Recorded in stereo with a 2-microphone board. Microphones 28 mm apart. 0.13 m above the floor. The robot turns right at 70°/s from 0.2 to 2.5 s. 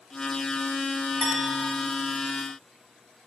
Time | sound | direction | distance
1.2 | a clink | 105° left | 7.5 m